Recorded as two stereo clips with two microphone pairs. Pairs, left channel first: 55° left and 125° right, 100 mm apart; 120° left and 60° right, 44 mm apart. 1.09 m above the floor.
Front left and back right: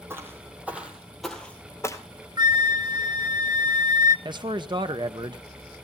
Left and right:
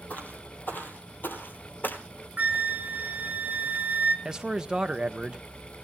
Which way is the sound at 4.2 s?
125° right.